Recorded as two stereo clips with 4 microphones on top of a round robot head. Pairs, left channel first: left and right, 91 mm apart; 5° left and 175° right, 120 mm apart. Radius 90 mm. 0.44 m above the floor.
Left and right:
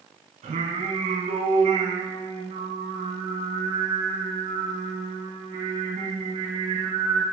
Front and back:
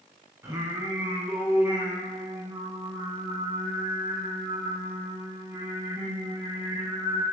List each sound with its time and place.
0.4 s singing: 105° right, 1.2 m